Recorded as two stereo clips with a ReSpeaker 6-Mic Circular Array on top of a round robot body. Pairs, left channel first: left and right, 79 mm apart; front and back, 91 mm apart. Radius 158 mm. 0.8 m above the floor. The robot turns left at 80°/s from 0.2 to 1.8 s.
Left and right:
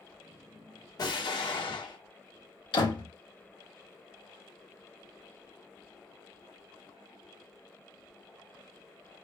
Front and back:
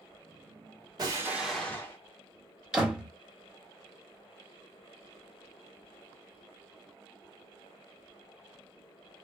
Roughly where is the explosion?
Behind left.